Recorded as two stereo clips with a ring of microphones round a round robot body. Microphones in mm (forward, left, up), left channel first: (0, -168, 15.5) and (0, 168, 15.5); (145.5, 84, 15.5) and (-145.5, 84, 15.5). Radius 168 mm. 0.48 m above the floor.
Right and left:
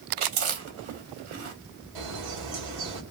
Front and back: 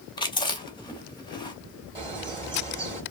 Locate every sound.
0.2 s chewing: 70° left, 1.6 m
1.9 s a bird: 105° left, 2.5 m